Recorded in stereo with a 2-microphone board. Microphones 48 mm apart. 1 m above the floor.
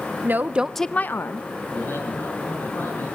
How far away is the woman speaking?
About 1.0 m.